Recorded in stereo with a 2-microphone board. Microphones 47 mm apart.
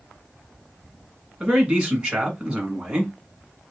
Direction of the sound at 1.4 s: 25° right (ahead or behind).